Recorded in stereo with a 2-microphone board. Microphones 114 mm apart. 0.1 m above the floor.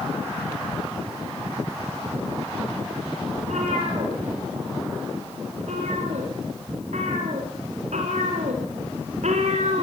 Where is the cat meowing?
85° right, 9.5 m; by 9.8 s 75° right (ahead or behind), 4 m.